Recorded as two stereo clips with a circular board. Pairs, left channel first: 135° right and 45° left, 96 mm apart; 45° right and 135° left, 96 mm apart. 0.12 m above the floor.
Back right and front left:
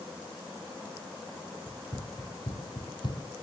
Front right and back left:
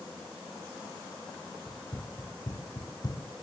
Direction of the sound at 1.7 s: 95° right.